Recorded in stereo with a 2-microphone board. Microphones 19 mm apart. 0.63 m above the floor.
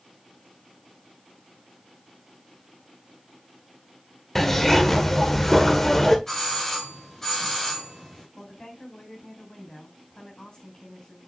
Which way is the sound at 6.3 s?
25° left (ahead or behind).